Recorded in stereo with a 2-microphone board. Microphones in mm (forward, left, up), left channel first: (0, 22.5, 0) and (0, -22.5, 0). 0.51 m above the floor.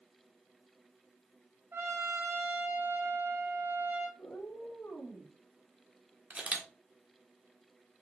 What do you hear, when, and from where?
1.7 s a trumpet: 55° right (ahead or behind), 3 m
4.2 s a cat meowing: 65° left (ahead or behind), 3.5 m
6.3 s a camera shutter: 30° right (ahead or behind), 1.5 m